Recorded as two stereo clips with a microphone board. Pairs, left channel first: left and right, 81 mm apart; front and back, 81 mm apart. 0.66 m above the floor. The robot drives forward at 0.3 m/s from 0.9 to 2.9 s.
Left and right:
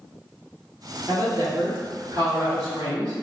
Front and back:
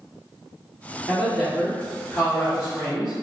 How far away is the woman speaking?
About 1.8 m.